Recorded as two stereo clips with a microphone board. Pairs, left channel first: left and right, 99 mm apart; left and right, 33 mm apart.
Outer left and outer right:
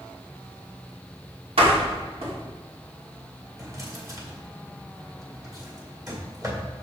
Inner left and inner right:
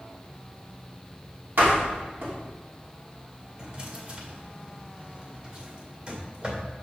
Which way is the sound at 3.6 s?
35° right (ahead or behind).